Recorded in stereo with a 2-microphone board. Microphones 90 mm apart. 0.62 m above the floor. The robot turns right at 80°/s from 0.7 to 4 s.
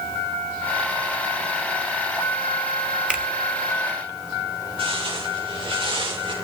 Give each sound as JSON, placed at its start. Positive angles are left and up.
{"t": 3.1, "sound": "a finger snap", "side_deg": -10, "distance_m": 1.5}
{"t": 4.8, "sound": "footsteps", "side_deg": -75, "distance_m": 7.5}